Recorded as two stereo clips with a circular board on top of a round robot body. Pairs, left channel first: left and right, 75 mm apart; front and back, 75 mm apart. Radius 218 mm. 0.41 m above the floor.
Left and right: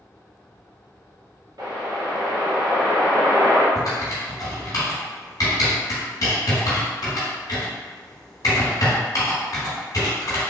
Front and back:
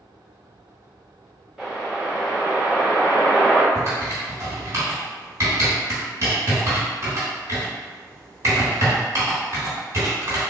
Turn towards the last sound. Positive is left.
turn(degrees=130)